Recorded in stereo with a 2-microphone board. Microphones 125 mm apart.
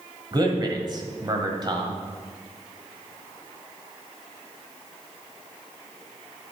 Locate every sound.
0.3 s a man speaking: 35° right (ahead or behind), 1.5 m